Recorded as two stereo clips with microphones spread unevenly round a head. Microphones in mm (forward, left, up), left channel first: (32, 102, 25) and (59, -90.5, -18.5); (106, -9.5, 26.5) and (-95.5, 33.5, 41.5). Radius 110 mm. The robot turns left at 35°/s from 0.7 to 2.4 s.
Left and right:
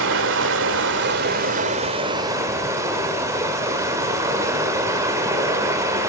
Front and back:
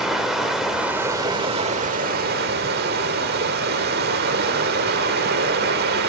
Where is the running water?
110° right, 1.5 m; by 6.1 s 170° right, 1.5 m.